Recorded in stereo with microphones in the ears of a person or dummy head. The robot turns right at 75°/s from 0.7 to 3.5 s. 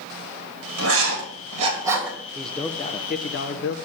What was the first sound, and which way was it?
Writing, 80° right.